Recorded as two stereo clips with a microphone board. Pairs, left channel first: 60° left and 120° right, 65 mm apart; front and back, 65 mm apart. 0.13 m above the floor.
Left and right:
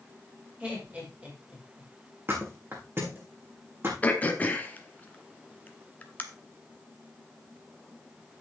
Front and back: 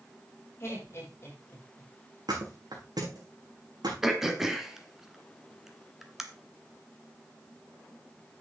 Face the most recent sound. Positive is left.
turn(degrees=100)